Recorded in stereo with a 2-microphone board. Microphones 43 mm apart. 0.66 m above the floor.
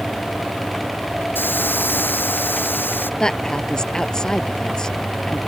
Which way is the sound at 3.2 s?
15° left (ahead or behind).